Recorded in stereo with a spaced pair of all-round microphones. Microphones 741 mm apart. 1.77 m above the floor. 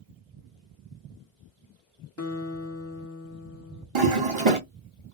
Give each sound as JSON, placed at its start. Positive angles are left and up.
{"t": 2.2, "sound": "a guitar", "side_deg": 20, "distance_m": 0.8}
{"t": 4.0, "sound": "a toilet flushing", "side_deg": -40, "distance_m": 1.1}